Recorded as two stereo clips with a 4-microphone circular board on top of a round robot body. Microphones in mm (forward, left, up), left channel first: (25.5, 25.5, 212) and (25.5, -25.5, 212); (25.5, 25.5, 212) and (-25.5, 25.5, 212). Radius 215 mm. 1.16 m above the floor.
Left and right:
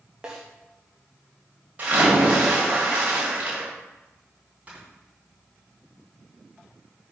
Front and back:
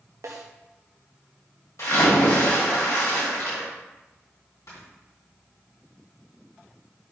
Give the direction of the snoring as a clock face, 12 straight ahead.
1 o'clock.